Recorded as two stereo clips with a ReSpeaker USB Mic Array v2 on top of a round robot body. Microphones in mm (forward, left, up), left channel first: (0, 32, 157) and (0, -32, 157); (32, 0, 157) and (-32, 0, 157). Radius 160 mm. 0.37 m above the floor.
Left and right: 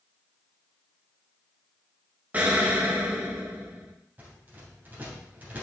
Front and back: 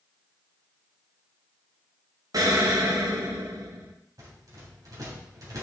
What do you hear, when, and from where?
2.3 s an explosion: 160° right, 1.5 m
4.2 s a rattle: 155° right, 3 m